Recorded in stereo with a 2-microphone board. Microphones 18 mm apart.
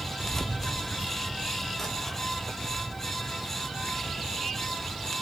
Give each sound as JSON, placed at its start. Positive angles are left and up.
{"t": 0.2, "sound": "keys jangling", "side_deg": 25, "distance_m": 1.2}